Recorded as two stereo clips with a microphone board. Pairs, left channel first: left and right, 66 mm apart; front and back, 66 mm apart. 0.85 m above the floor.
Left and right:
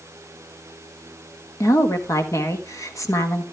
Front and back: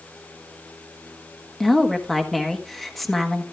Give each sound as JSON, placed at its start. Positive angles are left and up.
{"t": 1.6, "sound": "a woman speaking", "azimuth_deg": 85, "distance_m": 1.4}